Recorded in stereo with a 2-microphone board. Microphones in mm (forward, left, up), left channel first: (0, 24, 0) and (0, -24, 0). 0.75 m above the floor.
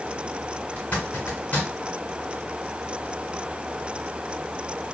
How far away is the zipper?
About 1.5 m.